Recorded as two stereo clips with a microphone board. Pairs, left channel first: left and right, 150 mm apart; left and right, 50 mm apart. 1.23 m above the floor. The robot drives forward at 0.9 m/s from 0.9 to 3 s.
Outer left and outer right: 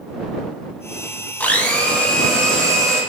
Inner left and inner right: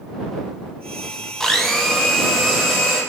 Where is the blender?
10° left (ahead or behind), 0.7 m; by 3.0 s 5° left (ahead or behind), 2 m.